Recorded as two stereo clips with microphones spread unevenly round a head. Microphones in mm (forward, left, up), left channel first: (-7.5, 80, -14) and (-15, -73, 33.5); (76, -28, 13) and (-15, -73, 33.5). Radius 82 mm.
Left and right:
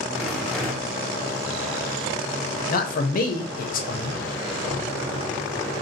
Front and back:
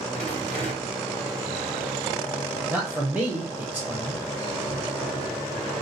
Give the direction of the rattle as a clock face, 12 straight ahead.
5 o'clock.